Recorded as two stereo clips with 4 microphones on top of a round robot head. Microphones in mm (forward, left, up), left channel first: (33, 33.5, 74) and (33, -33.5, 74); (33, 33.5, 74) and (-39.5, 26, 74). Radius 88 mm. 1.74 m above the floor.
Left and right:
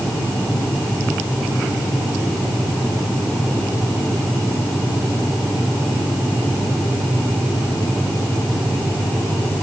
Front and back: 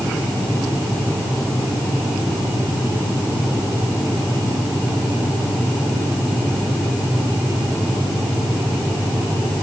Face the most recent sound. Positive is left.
No sound to turn to.